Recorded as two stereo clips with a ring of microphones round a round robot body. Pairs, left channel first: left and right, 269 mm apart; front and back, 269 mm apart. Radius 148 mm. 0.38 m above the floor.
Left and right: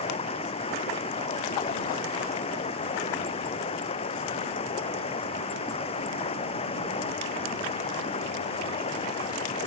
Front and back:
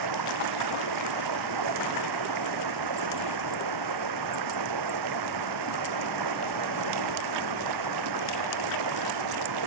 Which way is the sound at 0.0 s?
160° left.